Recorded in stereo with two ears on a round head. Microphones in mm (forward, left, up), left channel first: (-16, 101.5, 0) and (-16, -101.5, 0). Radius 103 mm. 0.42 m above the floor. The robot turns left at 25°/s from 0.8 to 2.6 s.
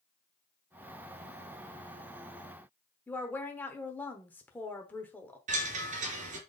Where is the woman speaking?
10° left (ahead or behind), 1.0 m.